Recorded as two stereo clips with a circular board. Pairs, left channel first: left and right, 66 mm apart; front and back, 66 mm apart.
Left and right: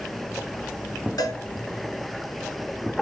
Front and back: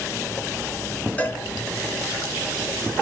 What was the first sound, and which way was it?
A cowbell, 65° left.